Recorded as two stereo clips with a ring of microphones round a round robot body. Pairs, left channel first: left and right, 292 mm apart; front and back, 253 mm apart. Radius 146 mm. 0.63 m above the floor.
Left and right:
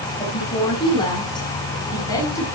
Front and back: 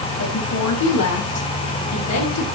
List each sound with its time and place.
0.2 s a woman speaking: 20° left, 6 m; by 2.5 s 10° left, 7.5 m